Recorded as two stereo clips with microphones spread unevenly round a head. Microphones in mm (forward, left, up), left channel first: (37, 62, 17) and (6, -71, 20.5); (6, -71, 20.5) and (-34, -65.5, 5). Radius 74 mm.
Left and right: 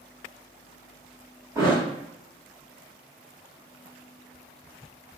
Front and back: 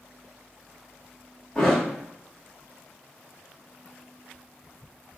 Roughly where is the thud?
Ahead right.